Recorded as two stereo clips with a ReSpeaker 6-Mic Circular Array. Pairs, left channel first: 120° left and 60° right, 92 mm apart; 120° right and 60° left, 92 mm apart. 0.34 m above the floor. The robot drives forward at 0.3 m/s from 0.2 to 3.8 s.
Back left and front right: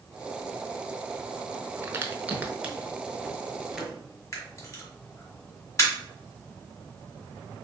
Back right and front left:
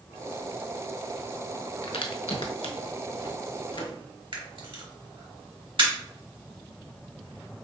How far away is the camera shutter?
About 1.3 m.